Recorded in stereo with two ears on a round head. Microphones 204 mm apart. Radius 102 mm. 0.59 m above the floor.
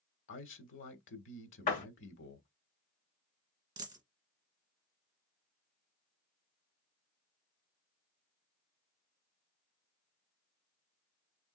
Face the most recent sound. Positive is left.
turn(degrees=-20)  # may be behind; listen again after turning